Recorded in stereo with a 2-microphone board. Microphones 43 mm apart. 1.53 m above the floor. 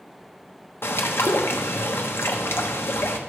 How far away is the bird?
About 1.2 m.